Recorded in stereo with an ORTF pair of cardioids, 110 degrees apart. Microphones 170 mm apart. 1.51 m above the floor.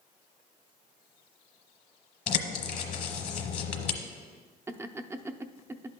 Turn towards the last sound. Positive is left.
turn(degrees=-15)